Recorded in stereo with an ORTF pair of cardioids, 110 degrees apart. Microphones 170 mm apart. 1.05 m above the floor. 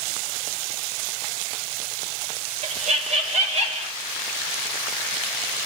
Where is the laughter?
40° right, 1.7 m.